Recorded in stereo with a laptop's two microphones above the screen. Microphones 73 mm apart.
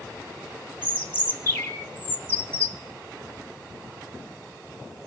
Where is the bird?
25° left (ahead or behind), 3 m.